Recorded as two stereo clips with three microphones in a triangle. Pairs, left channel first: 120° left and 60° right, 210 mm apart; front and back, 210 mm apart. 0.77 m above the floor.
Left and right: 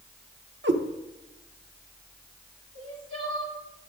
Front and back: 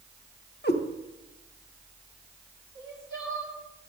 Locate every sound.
0.6 s a cat meowing: 35° right, 0.9 m
2.8 s crying: 70° right, 3 m